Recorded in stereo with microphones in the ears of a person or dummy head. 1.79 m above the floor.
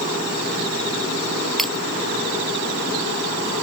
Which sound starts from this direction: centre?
Breaking glass, at 1.6 s.